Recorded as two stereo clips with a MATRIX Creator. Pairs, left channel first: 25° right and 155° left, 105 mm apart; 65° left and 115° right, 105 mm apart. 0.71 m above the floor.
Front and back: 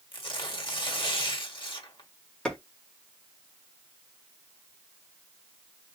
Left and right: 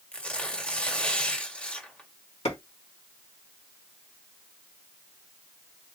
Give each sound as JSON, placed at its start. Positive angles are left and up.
{"t": 0.1, "sound": "tearing paper", "azimuth_deg": -10, "distance_m": 1.6}
{"t": 2.5, "sound": "a clap", "azimuth_deg": 55, "distance_m": 2.0}